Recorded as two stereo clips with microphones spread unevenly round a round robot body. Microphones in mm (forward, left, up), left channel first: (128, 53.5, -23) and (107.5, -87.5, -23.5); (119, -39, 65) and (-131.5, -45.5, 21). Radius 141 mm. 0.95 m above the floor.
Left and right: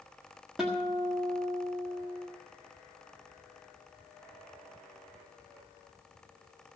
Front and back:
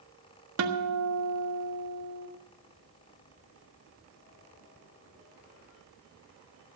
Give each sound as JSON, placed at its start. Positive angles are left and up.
{"t": 0.6, "sound": "a guitar", "azimuth_deg": 175, "distance_m": 1.4}